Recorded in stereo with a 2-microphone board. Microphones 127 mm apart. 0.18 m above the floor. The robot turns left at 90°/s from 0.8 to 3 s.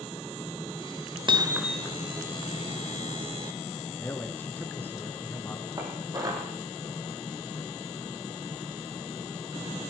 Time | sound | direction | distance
1.3 | hammering | 135° right | 0.8 m
4.0 | a man speaking | 15° left (ahead or behind) | 2 m
5.8 | dishes clattering | 30° right (ahead or behind) | 5 m